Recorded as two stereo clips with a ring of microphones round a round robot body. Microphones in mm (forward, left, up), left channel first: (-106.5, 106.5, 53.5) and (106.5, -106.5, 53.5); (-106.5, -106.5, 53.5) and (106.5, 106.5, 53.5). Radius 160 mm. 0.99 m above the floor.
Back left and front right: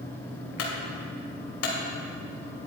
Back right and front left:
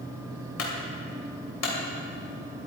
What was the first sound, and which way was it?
A clunk, straight behind.